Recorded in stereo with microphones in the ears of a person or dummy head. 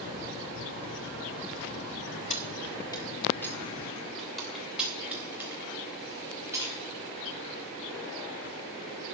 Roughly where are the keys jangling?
Left.